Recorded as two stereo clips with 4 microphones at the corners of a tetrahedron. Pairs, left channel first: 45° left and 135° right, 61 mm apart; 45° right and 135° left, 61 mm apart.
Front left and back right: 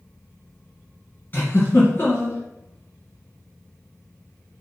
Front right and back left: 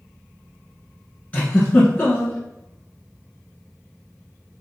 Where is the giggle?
10° left, 1.7 m.